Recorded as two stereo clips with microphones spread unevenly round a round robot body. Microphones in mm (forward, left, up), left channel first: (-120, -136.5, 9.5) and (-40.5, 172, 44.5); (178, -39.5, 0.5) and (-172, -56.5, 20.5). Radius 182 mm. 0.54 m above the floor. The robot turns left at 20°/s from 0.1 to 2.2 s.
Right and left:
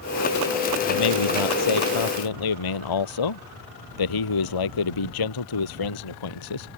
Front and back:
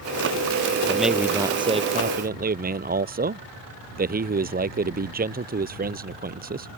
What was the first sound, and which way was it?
A man speaking, 85° right.